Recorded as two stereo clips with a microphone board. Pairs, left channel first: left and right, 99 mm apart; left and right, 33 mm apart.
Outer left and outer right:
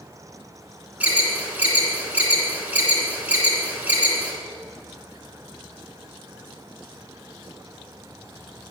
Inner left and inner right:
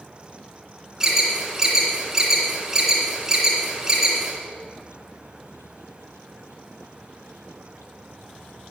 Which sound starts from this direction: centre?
An alarm, at 1.0 s.